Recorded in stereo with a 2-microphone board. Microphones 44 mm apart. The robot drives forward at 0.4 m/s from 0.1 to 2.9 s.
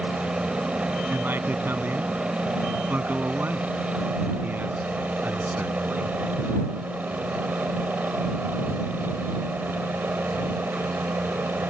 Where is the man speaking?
45° right (ahead or behind); by 6.2 s 40° right (ahead or behind).